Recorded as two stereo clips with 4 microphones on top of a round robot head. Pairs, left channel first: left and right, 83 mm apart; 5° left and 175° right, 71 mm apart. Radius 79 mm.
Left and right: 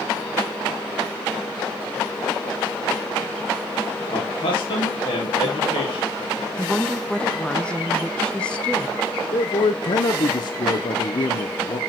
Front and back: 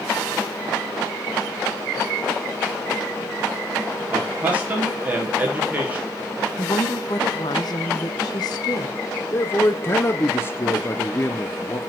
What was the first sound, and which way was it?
A man speaking, 115° left.